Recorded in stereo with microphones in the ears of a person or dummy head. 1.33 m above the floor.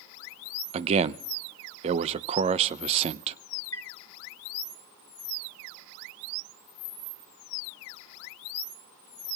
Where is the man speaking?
35° right (ahead or behind), 0.6 m.